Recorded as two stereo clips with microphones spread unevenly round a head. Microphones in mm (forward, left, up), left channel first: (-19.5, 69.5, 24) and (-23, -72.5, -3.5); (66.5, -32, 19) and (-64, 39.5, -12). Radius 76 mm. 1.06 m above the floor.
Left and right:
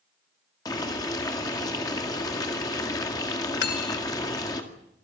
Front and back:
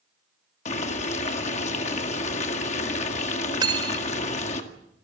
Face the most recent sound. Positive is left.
turn(degrees=85)